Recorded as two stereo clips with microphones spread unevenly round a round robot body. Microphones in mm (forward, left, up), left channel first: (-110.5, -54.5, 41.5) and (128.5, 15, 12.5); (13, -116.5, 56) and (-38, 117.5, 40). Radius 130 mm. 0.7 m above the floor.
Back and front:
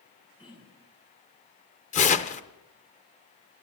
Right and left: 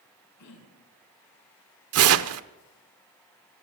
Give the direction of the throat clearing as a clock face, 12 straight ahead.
3 o'clock.